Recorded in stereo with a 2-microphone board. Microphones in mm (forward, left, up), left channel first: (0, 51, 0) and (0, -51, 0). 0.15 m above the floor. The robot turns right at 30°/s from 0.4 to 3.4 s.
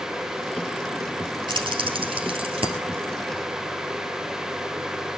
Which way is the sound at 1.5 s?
50° right (ahead or behind).